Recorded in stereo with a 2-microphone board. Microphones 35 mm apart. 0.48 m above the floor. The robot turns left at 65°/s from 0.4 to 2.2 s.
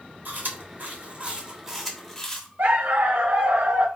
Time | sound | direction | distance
0.2 | chewing | 65° right (ahead or behind) | 1.0 m
2.6 | a dog barking | 75° right (ahead or behind) | 0.7 m